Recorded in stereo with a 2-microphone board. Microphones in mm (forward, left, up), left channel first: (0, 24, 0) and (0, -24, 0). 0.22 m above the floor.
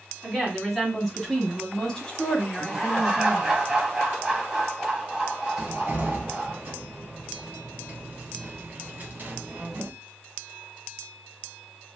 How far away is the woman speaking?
About 1.9 m.